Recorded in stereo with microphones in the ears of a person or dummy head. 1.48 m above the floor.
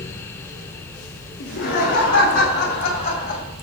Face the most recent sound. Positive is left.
turn(degrees=40)  # may be behind; listen again after turning